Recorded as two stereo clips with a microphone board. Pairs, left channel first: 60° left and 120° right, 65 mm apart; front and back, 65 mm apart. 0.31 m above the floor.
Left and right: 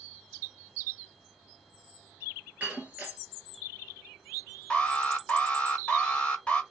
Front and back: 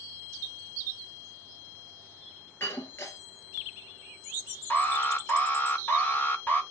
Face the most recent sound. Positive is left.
turn(degrees=10)